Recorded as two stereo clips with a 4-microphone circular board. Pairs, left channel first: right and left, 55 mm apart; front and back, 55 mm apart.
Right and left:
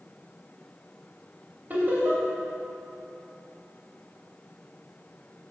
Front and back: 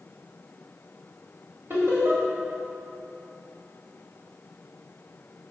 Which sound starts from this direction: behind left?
Laughter, at 1.7 s.